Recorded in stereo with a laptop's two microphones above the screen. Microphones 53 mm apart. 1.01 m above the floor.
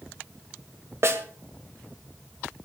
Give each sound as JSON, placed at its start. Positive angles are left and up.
{"t": 1.0, "sound": "a snare drum", "side_deg": -55, "distance_m": 2.0}